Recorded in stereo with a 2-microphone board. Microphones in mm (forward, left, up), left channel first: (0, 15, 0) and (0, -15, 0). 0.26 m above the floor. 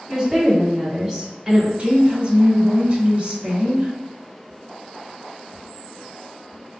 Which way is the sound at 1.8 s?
35° right (ahead or behind).